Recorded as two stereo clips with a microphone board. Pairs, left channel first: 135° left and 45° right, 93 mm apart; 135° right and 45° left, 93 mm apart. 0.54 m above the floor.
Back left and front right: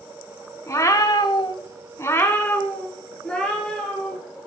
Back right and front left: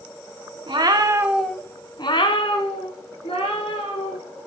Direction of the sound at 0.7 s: 75° left.